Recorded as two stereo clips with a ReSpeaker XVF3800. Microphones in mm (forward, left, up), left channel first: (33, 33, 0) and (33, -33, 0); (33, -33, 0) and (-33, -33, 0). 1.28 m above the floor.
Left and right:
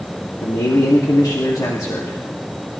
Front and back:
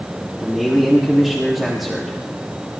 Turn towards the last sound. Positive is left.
turn(degrees=90)